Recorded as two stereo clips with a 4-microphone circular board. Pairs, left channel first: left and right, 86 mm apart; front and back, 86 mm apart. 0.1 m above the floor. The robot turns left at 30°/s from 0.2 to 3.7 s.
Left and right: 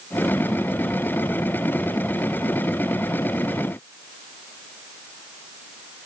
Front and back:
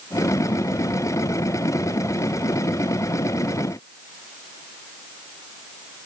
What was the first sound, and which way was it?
Only background noise.